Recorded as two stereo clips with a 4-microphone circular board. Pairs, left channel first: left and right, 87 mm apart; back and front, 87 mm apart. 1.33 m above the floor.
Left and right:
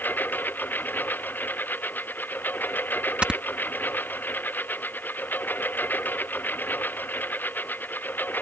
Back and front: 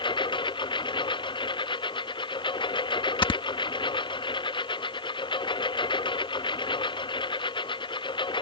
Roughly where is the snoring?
Behind.